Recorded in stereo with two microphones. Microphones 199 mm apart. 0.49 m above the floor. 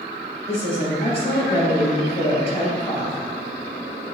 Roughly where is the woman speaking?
Left.